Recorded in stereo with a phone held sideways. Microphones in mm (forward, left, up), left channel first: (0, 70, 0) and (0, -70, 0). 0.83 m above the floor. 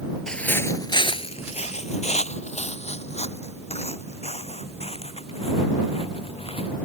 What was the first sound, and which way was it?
Footsteps, 5° left (ahead or behind).